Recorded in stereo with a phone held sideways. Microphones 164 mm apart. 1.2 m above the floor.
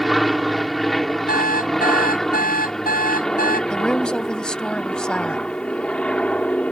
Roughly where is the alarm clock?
Left.